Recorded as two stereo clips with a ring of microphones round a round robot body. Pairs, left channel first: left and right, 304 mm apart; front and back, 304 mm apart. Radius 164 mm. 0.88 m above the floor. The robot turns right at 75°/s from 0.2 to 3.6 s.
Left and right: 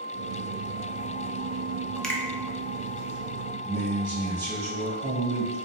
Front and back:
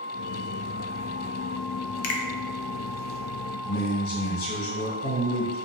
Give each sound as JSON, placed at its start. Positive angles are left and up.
{"t": 2.0, "sound": "a finger snap", "azimuth_deg": 0, "distance_m": 0.5}
{"t": 3.6, "sound": "a man speaking", "azimuth_deg": -30, "distance_m": 1.2}